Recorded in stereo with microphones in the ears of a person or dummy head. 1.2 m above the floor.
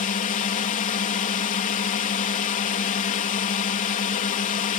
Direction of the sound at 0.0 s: 35° left (ahead or behind).